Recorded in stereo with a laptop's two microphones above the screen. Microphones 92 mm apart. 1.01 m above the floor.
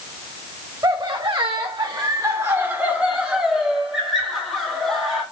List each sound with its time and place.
0.8 s laughter: 50° right (ahead or behind), 0.7 m; by 5.2 s 5° left (ahead or behind), 1.8 m